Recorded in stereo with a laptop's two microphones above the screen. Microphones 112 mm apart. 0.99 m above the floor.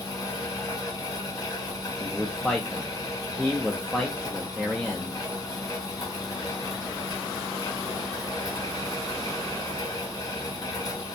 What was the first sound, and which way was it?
A fan, 30° left (ahead or behind).